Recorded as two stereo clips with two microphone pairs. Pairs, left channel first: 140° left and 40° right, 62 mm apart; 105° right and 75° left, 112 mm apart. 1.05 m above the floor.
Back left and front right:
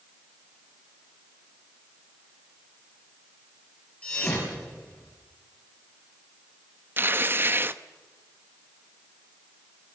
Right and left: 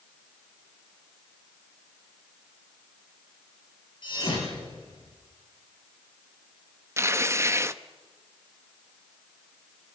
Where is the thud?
150° right, 8 m.